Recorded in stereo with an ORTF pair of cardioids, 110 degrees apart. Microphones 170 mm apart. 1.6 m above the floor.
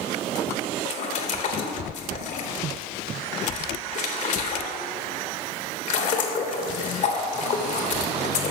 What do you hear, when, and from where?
0.8 s a splash: 45° left, 1.1 m